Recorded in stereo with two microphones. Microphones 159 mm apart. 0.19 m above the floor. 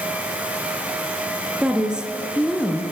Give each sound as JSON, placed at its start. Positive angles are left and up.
{"t": 1.6, "sound": "a woman speaking", "side_deg": -5, "distance_m": 3.0}